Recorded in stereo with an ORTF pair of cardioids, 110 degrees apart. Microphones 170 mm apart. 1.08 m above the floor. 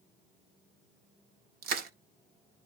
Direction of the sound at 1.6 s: 70° right.